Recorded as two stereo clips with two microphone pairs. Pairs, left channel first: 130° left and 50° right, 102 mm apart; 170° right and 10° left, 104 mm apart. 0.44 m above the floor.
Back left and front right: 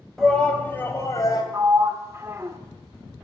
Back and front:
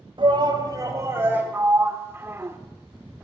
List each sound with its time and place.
0.2 s a shout: 45° left, 1.9 m; by 1.4 s 85° left, 2 m
1.5 s a sliding door: 25° right, 0.7 m